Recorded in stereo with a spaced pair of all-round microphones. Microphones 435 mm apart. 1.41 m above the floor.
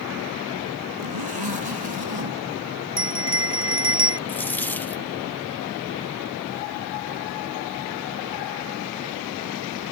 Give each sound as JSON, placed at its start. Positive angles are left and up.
{"t": 1.0, "sound": "a zipper", "side_deg": -65}
{"t": 3.0, "sound": "a bell", "side_deg": -60}
{"t": 4.3, "sound": "a dropped coin", "side_deg": 5}